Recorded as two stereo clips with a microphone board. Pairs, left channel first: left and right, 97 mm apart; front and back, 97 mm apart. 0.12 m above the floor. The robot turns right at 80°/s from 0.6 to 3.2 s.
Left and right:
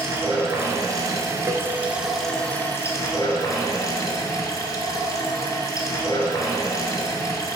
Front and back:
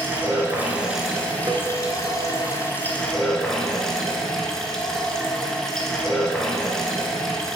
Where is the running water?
125° right, 1.0 m; by 7.6 s 85° left, 1.0 m.